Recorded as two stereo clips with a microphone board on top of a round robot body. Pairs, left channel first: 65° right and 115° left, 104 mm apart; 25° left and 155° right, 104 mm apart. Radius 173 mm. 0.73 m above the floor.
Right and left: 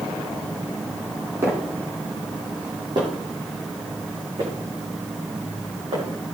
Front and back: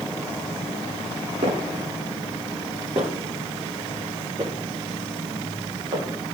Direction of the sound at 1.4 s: Straight behind.